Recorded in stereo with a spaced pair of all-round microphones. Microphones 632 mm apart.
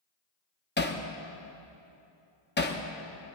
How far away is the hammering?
About 0.6 m.